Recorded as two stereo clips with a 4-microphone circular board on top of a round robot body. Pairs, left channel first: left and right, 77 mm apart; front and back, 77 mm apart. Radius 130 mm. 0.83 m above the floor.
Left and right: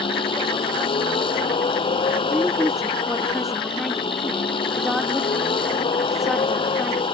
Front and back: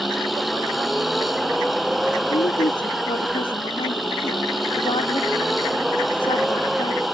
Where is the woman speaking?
Straight ahead.